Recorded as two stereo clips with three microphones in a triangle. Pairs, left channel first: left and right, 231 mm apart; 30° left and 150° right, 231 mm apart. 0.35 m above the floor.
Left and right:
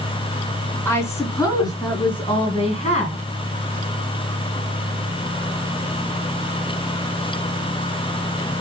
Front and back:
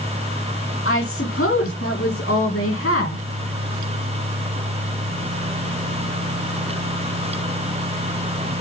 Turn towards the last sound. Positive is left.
turn(degrees=35)